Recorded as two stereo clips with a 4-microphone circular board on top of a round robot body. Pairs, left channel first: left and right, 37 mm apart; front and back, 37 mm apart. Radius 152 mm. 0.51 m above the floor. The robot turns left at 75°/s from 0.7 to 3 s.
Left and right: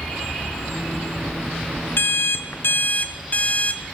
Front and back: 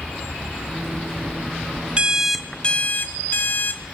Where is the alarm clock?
115° left, 0.6 m; by 3.8 s 35° left, 0.6 m.